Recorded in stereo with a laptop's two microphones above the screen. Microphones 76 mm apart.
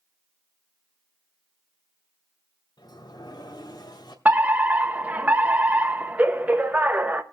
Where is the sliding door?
65° left (ahead or behind), 1.9 m.